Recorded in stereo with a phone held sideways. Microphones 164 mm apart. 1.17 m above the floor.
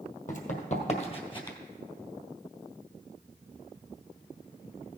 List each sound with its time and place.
0.3 s running footsteps: 55° left (ahead or behind), 2.0 m; by 1.6 s 25° left (ahead or behind), 1.5 m